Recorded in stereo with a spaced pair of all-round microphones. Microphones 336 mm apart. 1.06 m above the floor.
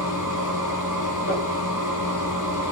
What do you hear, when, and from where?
0.0 s a machine running: 60° left (ahead or behind), 1.7 m
1.3 s crumpling: 40° left (ahead or behind), 2.0 m